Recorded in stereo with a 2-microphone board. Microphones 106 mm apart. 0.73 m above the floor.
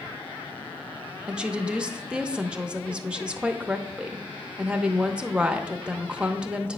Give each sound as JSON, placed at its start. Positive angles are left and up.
{"t": 1.3, "sound": "a woman speaking", "side_deg": -10, "distance_m": 0.7}